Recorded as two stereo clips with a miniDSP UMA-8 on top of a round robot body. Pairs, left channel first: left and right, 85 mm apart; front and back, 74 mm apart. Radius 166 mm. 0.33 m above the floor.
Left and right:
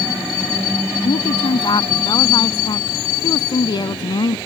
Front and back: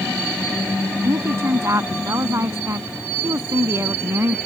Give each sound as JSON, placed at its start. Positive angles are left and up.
{"t": 1.0, "sound": "a woman speaking", "azimuth_deg": 125}